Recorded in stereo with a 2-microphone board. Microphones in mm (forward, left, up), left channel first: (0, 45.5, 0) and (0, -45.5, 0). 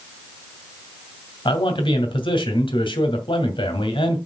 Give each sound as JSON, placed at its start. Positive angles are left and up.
{"t": 1.4, "sound": "a man speaking", "side_deg": 70, "distance_m": 2.0}